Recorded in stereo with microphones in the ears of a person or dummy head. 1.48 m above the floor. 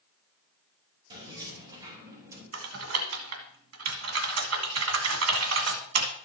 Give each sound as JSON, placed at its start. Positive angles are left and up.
{"t": 1.1, "sound": "keys jangling", "side_deg": -25, "distance_m": 5.5}
{"t": 2.5, "sound": "typing on a keyboard", "side_deg": -75, "distance_m": 1.7}